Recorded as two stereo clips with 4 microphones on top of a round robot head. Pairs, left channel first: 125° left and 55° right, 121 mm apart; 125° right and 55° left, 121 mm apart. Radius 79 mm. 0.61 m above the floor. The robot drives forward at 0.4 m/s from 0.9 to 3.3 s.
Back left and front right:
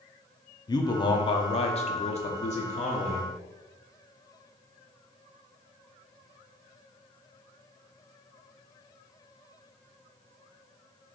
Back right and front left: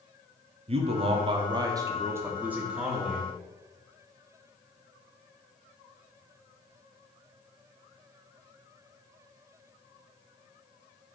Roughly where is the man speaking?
Left.